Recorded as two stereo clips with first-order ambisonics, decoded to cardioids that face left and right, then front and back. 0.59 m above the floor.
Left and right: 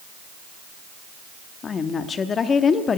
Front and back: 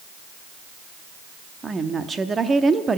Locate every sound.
1.6 s a woman speaking: 125° left, 0.6 m